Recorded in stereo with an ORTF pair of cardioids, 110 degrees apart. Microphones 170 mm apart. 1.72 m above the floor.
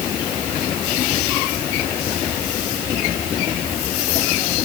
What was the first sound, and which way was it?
Only background noise.